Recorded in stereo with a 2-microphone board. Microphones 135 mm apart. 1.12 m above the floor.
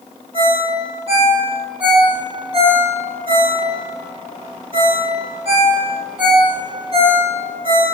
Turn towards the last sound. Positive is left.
turn(degrees=-45)  # may be behind; listen again after turning